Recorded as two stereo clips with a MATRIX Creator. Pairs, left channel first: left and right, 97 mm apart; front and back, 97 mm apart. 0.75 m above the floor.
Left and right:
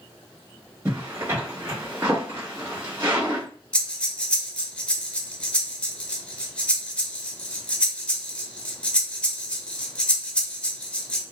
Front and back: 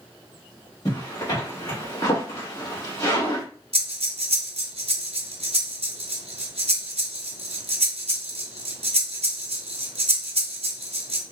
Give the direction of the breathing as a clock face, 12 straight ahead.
6 o'clock.